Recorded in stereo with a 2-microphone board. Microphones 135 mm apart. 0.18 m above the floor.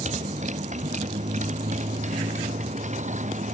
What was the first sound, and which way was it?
A motorcycle, 60° right (ahead or behind).